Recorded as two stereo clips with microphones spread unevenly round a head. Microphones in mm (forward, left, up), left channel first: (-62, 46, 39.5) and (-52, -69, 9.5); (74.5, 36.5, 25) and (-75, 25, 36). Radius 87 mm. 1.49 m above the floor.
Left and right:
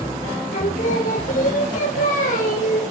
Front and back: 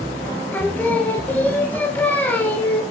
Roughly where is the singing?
Left.